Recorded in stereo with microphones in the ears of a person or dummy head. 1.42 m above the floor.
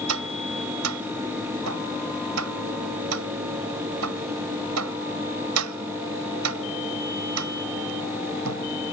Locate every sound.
0.1 s tapping: 90° right